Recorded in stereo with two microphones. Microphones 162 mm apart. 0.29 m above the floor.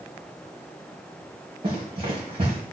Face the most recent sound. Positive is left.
turn(degrees=-35)  # may be behind; listen again after turning